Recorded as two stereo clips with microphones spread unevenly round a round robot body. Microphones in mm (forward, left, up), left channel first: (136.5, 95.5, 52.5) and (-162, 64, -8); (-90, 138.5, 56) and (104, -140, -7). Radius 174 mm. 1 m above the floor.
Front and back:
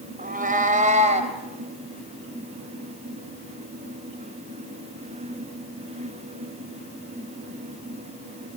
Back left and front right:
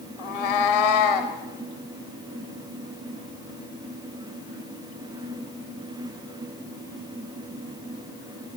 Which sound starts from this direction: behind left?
A cat meowing, at 0.2 s.